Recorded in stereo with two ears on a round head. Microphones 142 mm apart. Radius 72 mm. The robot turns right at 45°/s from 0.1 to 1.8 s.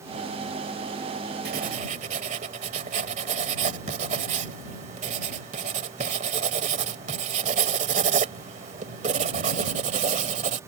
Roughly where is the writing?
Right.